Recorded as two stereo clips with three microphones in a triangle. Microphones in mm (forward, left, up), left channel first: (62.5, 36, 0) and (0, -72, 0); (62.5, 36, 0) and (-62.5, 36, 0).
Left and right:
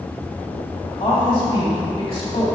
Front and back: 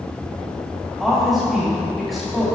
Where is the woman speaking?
90° left, 2 m.